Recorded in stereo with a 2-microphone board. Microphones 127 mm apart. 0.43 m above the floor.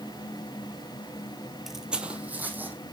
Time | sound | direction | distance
1.7 | footsteps | centre (ahead or behind) | 0.6 m